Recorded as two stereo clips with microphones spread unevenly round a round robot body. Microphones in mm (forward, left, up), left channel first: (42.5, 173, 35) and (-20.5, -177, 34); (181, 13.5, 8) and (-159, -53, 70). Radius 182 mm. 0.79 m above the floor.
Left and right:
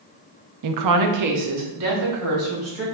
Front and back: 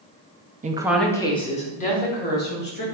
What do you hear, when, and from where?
0.6 s a woman speaking: 95° right, 0.6 m; by 2.9 s 50° right, 2.5 m